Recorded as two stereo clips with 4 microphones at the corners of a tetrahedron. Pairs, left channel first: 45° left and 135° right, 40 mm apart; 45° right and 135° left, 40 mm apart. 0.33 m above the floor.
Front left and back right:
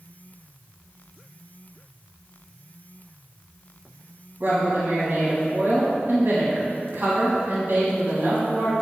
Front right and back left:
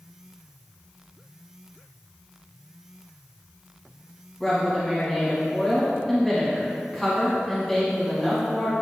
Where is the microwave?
No microwave in this recording.